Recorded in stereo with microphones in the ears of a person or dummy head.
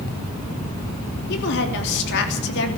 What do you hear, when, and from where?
1.3 s a woman speaking: 65° left (ahead or behind), 3.5 m